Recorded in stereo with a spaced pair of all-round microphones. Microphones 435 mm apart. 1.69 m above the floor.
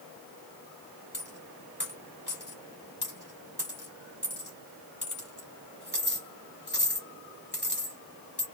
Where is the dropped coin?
25° left (ahead or behind), 1.4 m.